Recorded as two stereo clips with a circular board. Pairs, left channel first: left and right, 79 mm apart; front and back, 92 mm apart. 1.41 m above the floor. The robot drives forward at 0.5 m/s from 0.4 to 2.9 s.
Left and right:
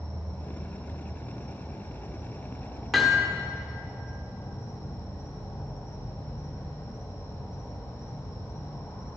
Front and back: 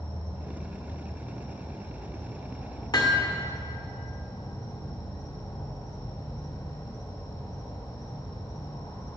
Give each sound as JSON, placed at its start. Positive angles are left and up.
{"t": 0.0, "sound": "an insect", "azimuth_deg": 20, "distance_m": 2.5}
{"t": 2.9, "sound": "hammering", "azimuth_deg": 0, "distance_m": 1.3}